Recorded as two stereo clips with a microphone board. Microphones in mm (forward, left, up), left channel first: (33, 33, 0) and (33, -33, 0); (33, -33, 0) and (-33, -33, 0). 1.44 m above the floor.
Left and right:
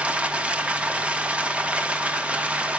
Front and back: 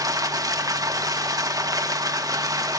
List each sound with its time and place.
0.0 s running water: 160° right, 1.2 m